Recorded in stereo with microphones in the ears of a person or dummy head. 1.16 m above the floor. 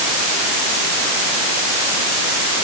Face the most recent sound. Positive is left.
No sound to turn to.